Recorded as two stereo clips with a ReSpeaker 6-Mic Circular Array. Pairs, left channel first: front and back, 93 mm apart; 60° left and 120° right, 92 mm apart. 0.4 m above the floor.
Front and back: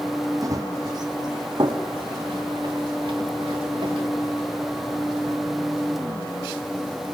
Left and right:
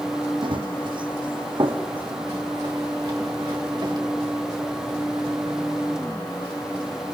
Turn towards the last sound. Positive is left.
turn(degrees=-150)